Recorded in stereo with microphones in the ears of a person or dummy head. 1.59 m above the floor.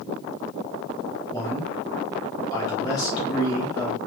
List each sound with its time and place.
1.3 s a man speaking: 20° left (ahead or behind), 1.2 m